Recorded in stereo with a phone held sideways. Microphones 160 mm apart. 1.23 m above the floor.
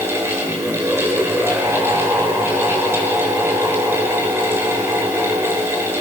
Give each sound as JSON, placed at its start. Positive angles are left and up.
{"t": 0.0, "sound": "a fan", "side_deg": -15, "distance_m": 5.5}